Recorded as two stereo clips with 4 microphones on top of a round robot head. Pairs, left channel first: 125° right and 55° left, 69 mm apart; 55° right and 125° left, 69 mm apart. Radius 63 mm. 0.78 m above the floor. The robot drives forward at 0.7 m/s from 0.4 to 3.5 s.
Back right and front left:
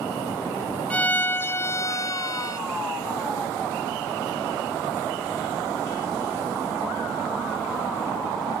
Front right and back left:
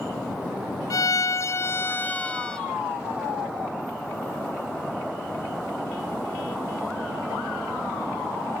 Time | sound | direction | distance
0.9 | a violin | 60° right | ?